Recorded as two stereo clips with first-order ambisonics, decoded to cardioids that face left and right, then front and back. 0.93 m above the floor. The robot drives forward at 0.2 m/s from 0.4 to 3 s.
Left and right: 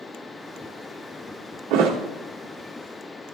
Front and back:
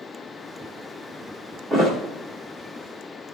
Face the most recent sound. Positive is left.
turn(degrees=-115)